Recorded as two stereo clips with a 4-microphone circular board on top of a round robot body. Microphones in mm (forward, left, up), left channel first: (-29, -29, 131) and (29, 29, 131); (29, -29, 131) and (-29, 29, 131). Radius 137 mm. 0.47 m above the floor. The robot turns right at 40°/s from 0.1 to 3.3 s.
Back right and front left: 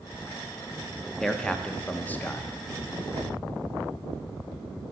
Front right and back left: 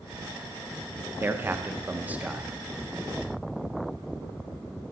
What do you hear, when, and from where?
1.2 s a man speaking: 145° left, 0.8 m; by 2.5 s 160° right, 0.8 m